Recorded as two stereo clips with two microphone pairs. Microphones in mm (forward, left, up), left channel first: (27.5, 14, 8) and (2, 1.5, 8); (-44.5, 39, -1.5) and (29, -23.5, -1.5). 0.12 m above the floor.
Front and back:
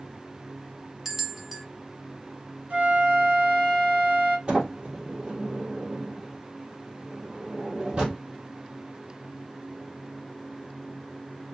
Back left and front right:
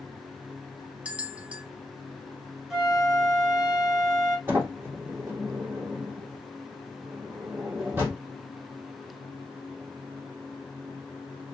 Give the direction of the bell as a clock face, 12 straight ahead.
3 o'clock.